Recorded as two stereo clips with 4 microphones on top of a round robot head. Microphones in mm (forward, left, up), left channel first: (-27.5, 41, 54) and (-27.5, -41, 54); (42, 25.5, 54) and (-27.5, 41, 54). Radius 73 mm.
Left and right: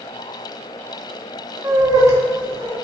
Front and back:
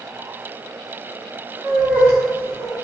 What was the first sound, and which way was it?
Laughter, 125° right.